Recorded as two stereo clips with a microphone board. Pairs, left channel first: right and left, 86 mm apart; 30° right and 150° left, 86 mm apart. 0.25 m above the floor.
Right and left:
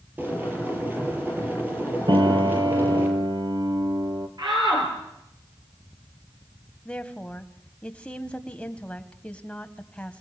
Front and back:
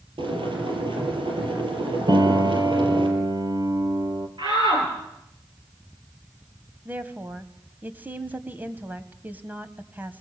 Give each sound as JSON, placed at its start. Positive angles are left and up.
{"t": 0.2, "sound": "boiling", "azimuth_deg": 160, "distance_m": 5.5}
{"t": 2.1, "sound": "a piano", "azimuth_deg": 115, "distance_m": 1.6}
{"t": 4.4, "sound": "a shout", "azimuth_deg": 125, "distance_m": 6.0}
{"t": 6.8, "sound": "a woman speaking", "azimuth_deg": -160, "distance_m": 1.7}